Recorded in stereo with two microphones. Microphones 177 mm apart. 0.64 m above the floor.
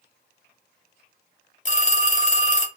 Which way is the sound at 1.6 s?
45° left (ahead or behind).